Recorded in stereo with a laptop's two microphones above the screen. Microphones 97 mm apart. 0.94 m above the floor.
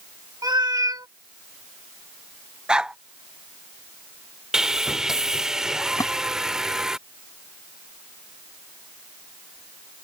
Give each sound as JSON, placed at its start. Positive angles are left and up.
{"t": 0.4, "sound": "a cat meowing", "side_deg": -45}
{"t": 2.7, "sound": "a dog barking", "side_deg": -10}
{"t": 4.5, "sound": "sawing", "side_deg": -5}
{"t": 6.0, "sound": "a splash", "side_deg": 40}